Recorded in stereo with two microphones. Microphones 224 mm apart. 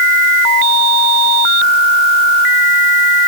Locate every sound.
Only background noise.